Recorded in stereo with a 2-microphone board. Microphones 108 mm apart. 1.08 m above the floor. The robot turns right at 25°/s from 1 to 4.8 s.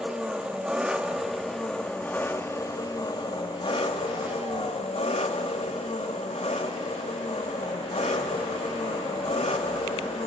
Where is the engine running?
10° right, 1.0 m; by 10.3 s 85° left, 1.0 m.